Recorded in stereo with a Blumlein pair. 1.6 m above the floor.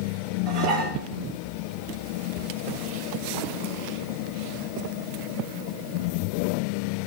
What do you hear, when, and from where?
0.5 s dishes clattering: 20° right, 1.8 m
2.4 s a cupboard door: 30° left, 3 m